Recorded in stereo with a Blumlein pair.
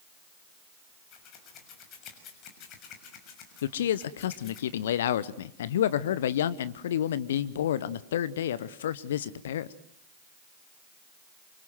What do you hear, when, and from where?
1.1 s scissors: 35° left, 6.5 m
3.6 s a man speaking: 60° left, 0.9 m